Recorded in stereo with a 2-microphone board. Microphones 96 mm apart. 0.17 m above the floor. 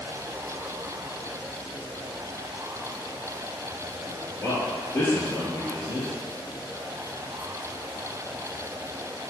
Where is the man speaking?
20° left (ahead or behind), 1.9 m.